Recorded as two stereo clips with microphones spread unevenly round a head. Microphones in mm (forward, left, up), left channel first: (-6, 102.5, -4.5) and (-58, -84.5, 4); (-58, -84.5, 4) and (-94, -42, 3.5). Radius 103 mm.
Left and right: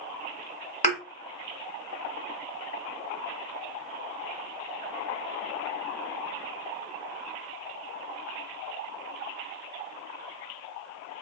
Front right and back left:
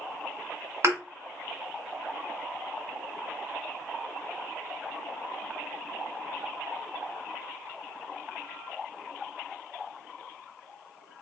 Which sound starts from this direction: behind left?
A thud, at 0.8 s.